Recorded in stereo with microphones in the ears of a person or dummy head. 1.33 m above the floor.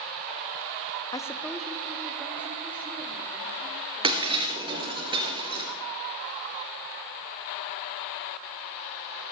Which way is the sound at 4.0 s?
20° right (ahead or behind).